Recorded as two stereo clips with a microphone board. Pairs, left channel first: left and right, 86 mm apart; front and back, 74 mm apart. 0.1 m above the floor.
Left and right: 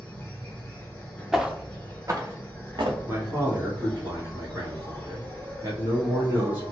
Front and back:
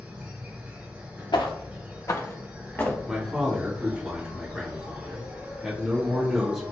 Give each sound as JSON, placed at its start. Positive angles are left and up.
{"t": 0.0, "sound": "an insect", "azimuth_deg": 140, "distance_m": 1.4}
{"t": 1.3, "sound": "footsteps", "azimuth_deg": 0, "distance_m": 0.8}
{"t": 3.1, "sound": "a man speaking", "azimuth_deg": -100, "distance_m": 1.3}